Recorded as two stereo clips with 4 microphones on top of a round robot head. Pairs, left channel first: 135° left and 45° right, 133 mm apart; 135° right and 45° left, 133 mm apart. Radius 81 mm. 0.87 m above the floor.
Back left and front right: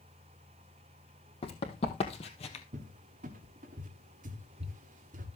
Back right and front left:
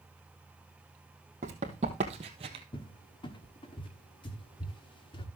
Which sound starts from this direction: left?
Running footsteps, at 1.4 s.